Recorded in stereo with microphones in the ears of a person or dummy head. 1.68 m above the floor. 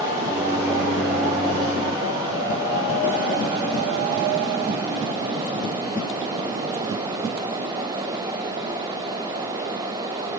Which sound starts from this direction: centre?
A microwave, at 0.3 s.